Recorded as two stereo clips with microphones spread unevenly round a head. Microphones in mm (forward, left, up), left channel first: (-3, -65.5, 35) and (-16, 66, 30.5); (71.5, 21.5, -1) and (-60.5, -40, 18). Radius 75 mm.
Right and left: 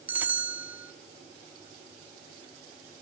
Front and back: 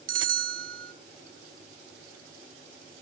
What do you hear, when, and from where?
0.1 s a bell: 175° left, 0.8 m